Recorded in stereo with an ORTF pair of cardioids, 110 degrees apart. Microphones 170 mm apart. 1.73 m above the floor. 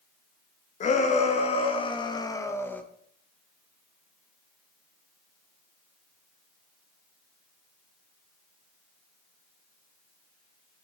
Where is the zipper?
I don't hear a zipper.